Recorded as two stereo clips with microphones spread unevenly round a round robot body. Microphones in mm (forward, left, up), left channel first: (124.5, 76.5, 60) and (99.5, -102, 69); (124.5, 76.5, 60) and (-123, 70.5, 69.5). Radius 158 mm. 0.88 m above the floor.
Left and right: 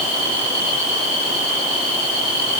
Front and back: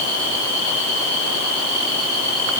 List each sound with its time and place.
Only background noise.